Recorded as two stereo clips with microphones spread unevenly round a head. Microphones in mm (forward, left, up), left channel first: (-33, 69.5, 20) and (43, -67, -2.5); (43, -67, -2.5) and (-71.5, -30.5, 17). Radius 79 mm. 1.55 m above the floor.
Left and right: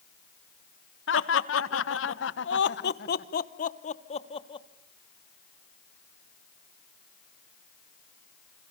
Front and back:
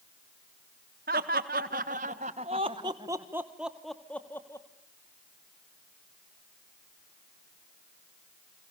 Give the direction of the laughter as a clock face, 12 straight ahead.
8 o'clock.